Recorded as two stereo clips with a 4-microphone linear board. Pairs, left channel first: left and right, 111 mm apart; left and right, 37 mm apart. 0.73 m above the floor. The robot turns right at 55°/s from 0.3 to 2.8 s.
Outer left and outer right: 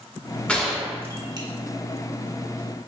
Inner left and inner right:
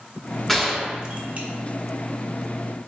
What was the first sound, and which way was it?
A gunshot, 10° left (ahead or behind).